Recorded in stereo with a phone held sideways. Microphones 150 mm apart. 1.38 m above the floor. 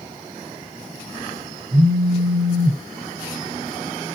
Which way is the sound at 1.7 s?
80° right.